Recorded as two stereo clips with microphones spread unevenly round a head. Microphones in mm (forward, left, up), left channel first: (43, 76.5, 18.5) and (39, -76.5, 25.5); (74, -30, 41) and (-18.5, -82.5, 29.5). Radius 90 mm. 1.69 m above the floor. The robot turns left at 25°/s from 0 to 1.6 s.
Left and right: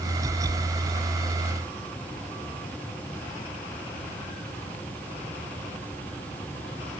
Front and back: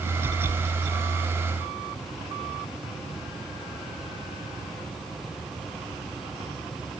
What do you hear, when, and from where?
Only background noise.